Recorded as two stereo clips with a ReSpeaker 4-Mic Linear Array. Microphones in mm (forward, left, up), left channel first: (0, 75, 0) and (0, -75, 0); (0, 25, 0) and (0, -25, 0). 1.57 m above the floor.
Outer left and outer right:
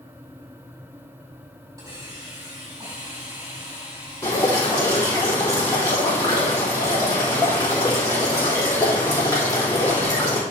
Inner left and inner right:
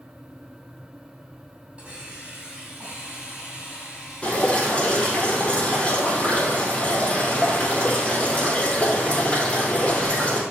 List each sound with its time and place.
1.8 s a hiss: 25° right (ahead or behind), 4 m
4.2 s dripping: 25° left (ahead or behind), 3.5 m